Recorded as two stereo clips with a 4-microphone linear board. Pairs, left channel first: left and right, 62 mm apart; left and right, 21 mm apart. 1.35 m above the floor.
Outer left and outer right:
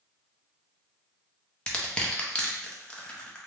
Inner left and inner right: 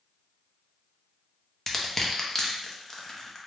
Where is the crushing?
15° left (ahead or behind), 0.6 m.